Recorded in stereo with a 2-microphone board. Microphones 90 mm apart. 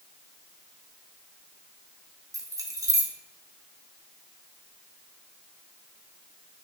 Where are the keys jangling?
35° right (ahead or behind), 0.8 m.